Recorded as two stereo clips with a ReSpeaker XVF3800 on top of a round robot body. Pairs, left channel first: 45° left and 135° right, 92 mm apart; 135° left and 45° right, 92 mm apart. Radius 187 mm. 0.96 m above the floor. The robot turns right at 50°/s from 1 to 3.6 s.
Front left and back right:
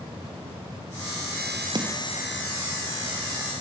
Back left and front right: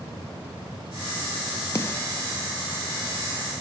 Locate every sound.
1.8 s a snare drum: 170° right, 0.9 m; by 2.0 s 155° right, 0.9 m